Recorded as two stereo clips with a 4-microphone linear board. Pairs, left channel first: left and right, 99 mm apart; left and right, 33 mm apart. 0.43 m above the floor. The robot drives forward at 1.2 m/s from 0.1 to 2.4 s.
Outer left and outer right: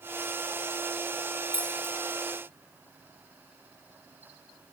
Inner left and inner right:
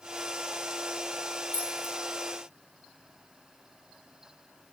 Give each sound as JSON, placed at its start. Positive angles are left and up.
{"t": 1.5, "sound": "keys jangling", "side_deg": 60, "distance_m": 4.5}